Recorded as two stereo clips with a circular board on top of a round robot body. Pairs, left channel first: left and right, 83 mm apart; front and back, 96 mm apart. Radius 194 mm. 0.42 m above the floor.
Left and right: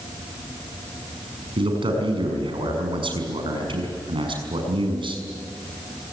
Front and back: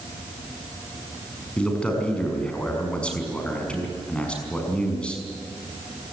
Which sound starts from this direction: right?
A man speaking, at 1.6 s.